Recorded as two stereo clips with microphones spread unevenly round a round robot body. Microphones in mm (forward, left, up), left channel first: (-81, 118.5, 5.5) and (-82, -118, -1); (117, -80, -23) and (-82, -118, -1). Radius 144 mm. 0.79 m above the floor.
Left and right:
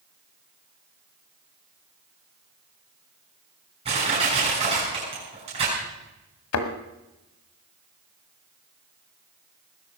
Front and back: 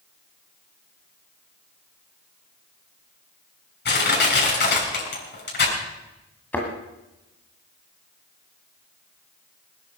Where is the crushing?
20° right, 6.5 m.